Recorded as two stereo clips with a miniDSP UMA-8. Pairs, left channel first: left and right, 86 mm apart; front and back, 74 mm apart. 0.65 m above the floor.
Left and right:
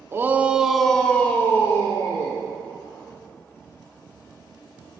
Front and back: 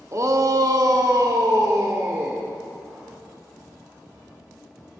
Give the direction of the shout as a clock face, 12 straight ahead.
5 o'clock.